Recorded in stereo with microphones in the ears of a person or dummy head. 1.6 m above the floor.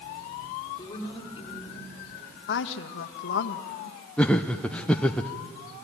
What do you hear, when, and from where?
0.8 s a woman speaking: 25° left (ahead or behind), 5 m
2.5 s a woman speaking: 65° left (ahead or behind), 1.4 m
4.2 s laughter: 5° left (ahead or behind), 0.6 m